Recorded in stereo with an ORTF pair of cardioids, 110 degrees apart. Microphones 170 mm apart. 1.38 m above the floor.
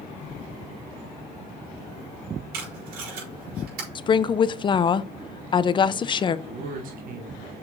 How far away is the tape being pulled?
About 4.5 m.